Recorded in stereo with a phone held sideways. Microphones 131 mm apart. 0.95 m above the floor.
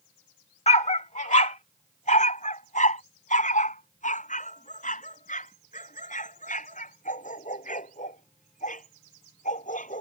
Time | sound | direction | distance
0.7 | a dog barking | 55° left (ahead or behind) | ?